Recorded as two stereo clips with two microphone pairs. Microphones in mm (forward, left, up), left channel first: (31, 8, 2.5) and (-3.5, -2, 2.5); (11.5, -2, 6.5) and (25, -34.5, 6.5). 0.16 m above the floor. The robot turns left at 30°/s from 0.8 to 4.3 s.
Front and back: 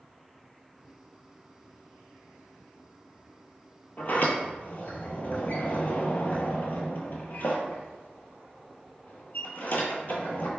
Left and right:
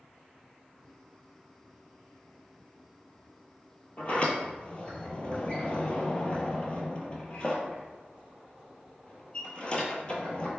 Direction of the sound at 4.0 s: 60° left.